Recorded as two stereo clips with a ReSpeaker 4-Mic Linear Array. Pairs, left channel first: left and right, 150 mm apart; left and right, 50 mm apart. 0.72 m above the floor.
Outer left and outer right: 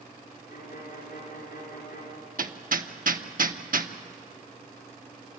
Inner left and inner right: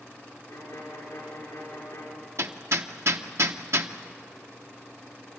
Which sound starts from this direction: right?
Hammering, at 2.4 s.